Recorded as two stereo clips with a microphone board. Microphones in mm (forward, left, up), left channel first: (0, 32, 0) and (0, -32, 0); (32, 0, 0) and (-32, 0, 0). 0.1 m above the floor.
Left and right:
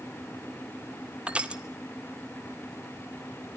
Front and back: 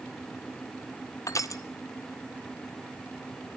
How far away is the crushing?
About 1.1 m.